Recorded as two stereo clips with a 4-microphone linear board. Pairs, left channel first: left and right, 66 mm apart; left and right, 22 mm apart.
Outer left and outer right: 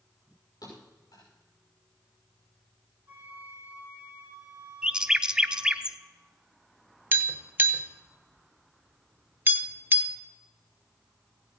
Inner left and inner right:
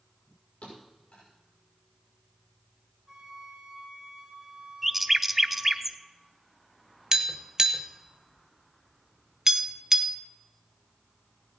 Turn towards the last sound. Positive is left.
turn(degrees=-30)  # may be behind; listen again after turning